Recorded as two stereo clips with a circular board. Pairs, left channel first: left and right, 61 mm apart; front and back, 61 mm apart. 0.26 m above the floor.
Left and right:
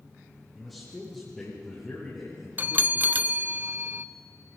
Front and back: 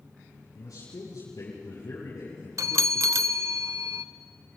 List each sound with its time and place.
0.6 s a man speaking: straight ahead, 8 m; by 3.4 s 10° left, 8 m
2.6 s a bell: 150° right, 0.6 m